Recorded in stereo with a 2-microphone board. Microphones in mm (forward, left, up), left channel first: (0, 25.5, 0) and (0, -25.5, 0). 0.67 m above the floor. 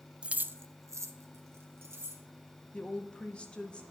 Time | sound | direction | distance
0.2 | keys jangling | 15° right (ahead or behind) | 0.5 m
2.7 | a woman speaking | 20° left (ahead or behind) | 0.9 m